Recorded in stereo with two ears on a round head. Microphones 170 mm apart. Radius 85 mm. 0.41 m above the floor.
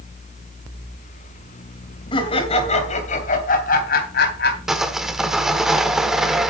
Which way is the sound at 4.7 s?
Centre (ahead or behind).